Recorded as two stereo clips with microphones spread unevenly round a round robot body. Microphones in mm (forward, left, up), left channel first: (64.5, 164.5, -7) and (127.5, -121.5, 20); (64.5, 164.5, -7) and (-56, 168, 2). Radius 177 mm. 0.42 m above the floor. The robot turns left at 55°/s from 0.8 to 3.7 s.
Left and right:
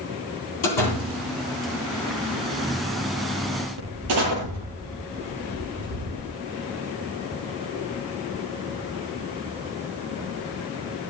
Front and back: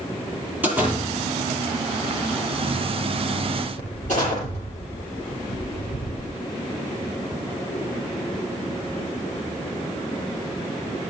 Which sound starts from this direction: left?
A door slam, at 0.6 s.